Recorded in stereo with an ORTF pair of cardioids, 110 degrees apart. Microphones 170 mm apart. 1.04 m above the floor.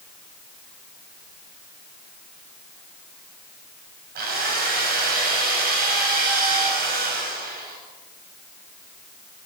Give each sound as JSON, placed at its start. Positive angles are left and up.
{"t": 4.2, "sound": "a drill", "azimuth_deg": -65, "distance_m": 7.5}